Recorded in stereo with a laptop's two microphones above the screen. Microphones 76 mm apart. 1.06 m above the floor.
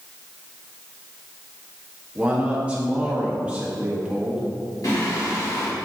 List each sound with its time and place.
2.1 s a man speaking: 15° right (ahead or behind), 1.1 m
4.8 s singing: 55° left (ahead or behind), 1.9 m